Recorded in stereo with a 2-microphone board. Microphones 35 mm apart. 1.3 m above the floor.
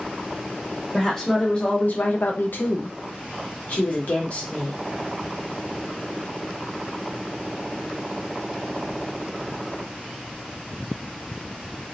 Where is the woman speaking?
10° left (ahead or behind), 1.0 m; by 4.8 s 45° left (ahead or behind), 1.8 m.